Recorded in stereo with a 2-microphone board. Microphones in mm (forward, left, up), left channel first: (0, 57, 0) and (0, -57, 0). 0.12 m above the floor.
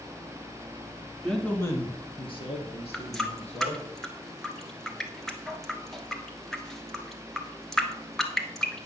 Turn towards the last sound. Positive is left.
turn(degrees=5)  # may be behind; listen again after turning